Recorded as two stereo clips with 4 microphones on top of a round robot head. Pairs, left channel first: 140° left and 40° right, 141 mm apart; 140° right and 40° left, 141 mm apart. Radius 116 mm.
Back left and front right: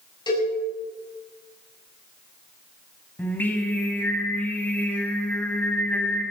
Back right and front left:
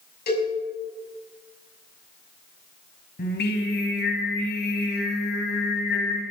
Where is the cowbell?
160° right, 6.5 m.